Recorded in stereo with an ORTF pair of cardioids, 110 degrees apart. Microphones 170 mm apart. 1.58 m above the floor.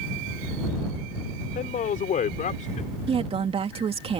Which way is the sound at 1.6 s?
55° left.